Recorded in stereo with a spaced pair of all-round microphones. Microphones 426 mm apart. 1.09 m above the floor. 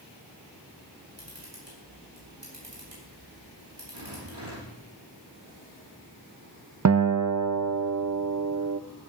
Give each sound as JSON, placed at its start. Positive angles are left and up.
{"t": 1.2, "sound": "a camera shutter", "side_deg": -85, "distance_m": 7.0}
{"t": 3.9, "sound": "a rattle", "side_deg": -65, "distance_m": 6.0}
{"t": 6.8, "sound": "a guitar", "side_deg": -40, "distance_m": 0.5}